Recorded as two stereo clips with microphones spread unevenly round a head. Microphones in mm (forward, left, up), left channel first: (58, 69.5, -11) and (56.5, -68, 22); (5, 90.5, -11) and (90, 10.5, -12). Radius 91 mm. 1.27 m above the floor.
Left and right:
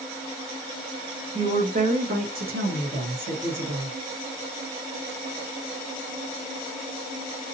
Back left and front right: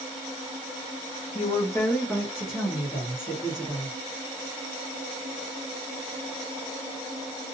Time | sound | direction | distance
1.4 | a woman speaking | 160° right | 0.5 m